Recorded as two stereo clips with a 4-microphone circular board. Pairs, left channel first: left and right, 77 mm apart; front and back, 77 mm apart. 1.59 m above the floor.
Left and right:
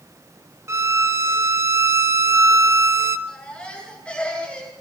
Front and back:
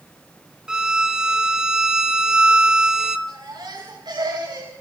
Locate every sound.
0.7 s a violin: 105° right, 1.0 m
3.3 s a baby crying: 165° left, 10 m